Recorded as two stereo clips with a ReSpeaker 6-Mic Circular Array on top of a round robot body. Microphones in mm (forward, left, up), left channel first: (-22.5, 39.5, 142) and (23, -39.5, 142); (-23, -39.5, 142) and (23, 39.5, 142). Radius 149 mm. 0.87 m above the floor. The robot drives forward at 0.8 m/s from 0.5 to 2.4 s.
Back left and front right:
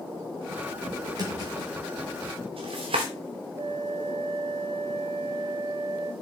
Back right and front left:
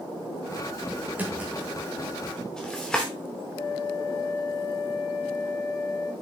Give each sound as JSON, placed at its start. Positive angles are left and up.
{"t": 1.2, "sound": "a drawer", "azimuth_deg": -15, "distance_m": 1.5}
{"t": 3.5, "sound": "a flute", "azimuth_deg": -75, "distance_m": 1.6}